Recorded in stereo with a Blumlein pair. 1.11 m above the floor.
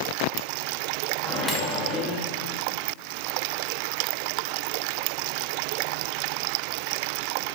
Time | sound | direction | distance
1.2 | a microwave | 10° left | 1.4 m